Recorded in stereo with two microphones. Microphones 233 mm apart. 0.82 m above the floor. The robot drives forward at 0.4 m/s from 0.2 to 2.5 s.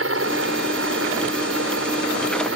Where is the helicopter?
60° right (ahead or behind).